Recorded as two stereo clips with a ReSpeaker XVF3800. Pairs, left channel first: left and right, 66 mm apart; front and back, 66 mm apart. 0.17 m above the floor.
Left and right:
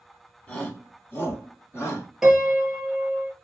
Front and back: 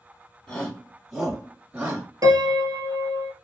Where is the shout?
55° left, 1.3 m; by 2.1 s 115° left, 1.8 m.